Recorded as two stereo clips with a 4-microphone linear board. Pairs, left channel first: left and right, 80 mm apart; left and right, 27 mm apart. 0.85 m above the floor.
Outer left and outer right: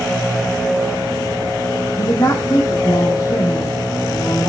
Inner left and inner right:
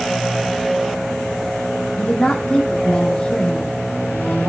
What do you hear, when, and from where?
2.0 s a woman speaking: 50° left (ahead or behind), 1.2 m